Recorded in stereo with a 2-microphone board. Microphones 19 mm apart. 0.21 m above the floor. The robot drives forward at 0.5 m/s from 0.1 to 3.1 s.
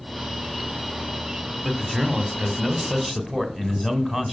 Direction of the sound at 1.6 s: 25° right (ahead or behind).